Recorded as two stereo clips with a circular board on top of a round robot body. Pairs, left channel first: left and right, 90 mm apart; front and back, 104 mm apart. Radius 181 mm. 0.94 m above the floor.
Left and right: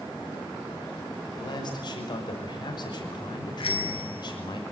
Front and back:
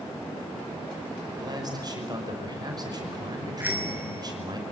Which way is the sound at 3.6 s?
105° left.